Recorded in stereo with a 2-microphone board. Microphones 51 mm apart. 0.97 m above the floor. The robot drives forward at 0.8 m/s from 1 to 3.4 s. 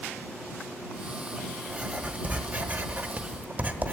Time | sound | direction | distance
1.7 | writing | 20° right (ahead or behind) | 1.3 m